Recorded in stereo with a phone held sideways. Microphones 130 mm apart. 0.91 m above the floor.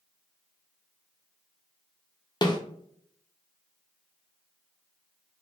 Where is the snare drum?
30° left (ahead or behind), 0.5 m.